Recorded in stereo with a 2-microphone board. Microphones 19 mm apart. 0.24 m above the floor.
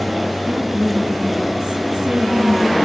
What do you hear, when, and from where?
0.5 s a woman speaking: 30° right (ahead or behind), 2 m